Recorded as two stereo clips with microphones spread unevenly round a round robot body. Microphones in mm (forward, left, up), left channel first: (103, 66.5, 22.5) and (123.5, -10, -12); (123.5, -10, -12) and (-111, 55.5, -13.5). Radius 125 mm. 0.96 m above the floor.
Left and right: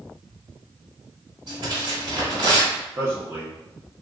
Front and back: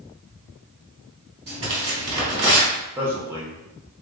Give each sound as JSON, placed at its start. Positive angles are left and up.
{"t": 1.5, "sound": "tearing paper", "azimuth_deg": -130, "distance_m": 1.3}
{"t": 3.0, "sound": "a man speaking", "azimuth_deg": -115, "distance_m": 0.9}